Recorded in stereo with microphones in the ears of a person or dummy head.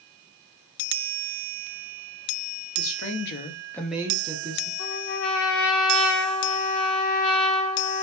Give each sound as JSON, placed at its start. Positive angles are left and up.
{"t": 2.8, "sound": "a woman speaking", "side_deg": 80, "distance_m": 1.5}
{"t": 4.8, "sound": "a trumpet", "side_deg": 70, "distance_m": 1.8}